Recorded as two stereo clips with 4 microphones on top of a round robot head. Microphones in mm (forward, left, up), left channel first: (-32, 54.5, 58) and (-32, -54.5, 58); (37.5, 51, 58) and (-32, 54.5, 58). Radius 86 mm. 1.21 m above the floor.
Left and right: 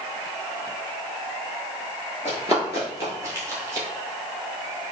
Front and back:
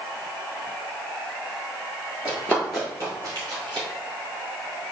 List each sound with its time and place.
2.2 s running footsteps: 25° right, 1.3 m; by 3.9 s 155° right, 2 m